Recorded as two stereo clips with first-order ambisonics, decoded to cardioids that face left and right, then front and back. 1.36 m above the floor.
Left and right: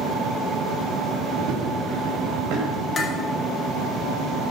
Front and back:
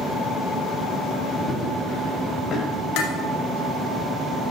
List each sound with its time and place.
1.4 s running footsteps: 60° right, 4.5 m; by 2.9 s 65° right, 5.5 m
3.0 s dishes clattering: 20° left, 2.5 m